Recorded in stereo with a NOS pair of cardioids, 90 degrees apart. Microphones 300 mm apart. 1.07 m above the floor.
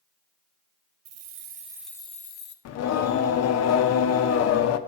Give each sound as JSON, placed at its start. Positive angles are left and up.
{"t": 1.1, "sound": "keys jangling", "azimuth_deg": -60, "distance_m": 0.6}
{"t": 2.6, "sound": "singing", "azimuth_deg": 60, "distance_m": 0.6}